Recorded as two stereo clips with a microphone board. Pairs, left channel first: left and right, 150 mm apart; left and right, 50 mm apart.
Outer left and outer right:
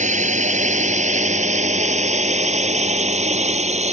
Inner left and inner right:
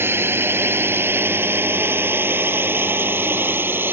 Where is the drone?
55° right (ahead or behind); by 3.9 s 50° right (ahead or behind).